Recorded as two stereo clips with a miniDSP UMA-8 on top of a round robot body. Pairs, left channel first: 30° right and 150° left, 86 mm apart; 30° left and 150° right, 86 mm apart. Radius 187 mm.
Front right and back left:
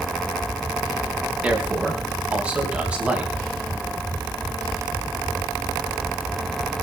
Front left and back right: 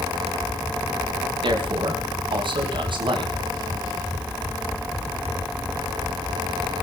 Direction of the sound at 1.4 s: 135° right.